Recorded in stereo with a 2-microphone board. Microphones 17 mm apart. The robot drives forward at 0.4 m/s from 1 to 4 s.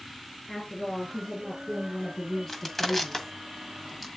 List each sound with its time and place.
0.5 s a woman speaking: 25° left (ahead or behind), 4 m; by 3.3 s 20° left (ahead or behind), 4.5 m
2.5 s crushing: 25° left (ahead or behind), 1.3 m; by 4.1 s 20° left (ahead or behind), 1.7 m